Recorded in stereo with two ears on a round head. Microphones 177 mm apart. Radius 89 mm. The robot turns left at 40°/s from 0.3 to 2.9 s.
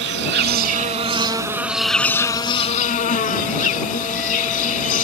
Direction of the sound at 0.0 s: 115° right.